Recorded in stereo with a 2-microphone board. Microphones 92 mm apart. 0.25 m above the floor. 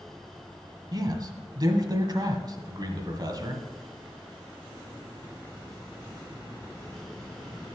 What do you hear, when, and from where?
0.9 s a man speaking: 50° right (ahead or behind), 1.4 m